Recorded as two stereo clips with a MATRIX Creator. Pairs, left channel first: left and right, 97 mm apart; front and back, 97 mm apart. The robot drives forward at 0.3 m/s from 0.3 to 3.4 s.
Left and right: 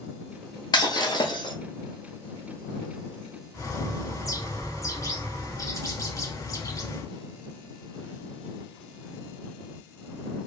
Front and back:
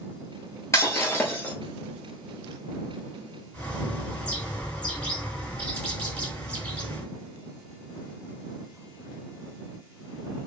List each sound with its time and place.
0.7 s breaking glass: 55° left, 1.0 m; by 1.5 s 70° left, 0.9 m
3.5 s a bird: 70° left, 0.9 m